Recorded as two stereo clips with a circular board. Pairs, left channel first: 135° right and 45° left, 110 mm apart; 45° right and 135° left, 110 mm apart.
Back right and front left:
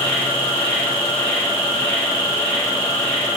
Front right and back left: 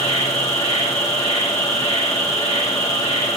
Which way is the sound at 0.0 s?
55° right.